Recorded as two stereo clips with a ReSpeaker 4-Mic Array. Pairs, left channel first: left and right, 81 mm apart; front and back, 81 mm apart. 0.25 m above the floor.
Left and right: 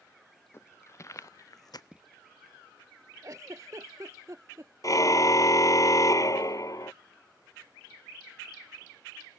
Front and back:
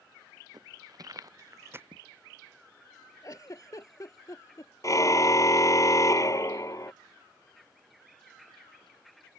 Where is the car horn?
45° left.